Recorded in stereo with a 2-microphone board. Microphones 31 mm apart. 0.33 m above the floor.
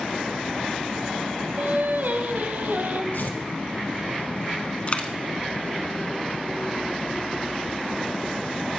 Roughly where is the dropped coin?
Left.